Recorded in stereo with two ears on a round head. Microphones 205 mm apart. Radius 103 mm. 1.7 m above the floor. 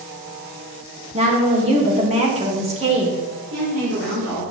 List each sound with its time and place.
1.1 s a woman speaking: 25° right (ahead or behind), 2.5 m
3.5 s a woman speaking: 70° right (ahead or behind), 4 m